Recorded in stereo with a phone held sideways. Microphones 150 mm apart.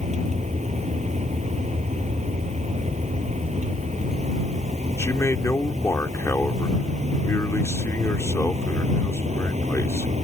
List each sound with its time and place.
0.0 s a vehicle: 50° right (ahead or behind)
5.0 s a man speaking: 20° left (ahead or behind)